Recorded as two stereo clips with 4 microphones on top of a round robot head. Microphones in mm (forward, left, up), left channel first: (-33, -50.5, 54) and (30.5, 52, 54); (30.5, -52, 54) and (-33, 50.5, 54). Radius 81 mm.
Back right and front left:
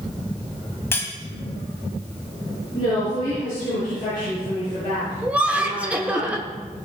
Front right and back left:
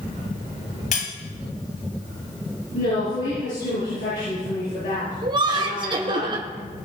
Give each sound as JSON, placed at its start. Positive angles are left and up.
{"t": 0.9, "sound": "cutlery clinking", "azimuth_deg": -50, "distance_m": 2.0}
{"t": 2.7, "sound": "a woman speaking", "azimuth_deg": -70, "distance_m": 7.0}
{"t": 5.2, "sound": "laughter", "azimuth_deg": 130, "distance_m": 1.0}